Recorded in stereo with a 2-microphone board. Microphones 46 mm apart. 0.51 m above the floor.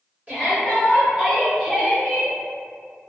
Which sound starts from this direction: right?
A shout, at 0.3 s.